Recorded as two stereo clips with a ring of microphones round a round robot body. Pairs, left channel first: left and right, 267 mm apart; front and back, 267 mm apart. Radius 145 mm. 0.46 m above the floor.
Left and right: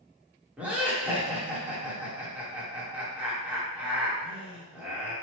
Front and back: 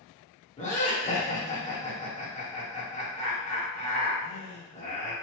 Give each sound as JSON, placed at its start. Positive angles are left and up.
{"t": 0.6, "sound": "laughter", "azimuth_deg": -15, "distance_m": 1.3}